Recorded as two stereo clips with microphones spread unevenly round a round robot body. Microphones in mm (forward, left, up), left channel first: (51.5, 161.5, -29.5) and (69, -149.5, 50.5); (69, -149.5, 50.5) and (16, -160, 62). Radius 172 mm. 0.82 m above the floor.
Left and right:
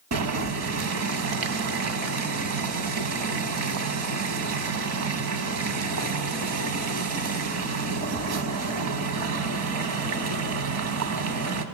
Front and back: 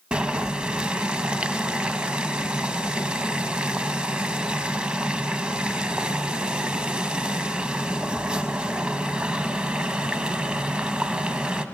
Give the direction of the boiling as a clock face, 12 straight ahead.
4 o'clock.